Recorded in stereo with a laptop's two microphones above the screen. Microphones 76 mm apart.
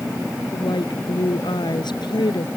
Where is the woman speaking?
85° left.